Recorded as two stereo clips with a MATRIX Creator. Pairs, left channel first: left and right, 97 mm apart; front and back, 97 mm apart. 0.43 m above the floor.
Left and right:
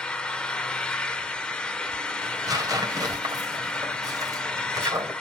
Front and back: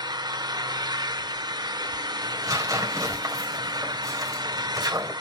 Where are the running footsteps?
No running footsteps in this recording.